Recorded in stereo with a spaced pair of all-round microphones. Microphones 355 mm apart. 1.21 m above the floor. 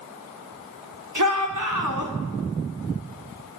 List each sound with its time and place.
1.1 s a shout: 60° right (ahead or behind), 4.5 m